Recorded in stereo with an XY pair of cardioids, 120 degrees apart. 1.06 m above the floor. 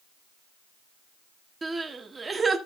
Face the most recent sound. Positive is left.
turn(degrees=-20)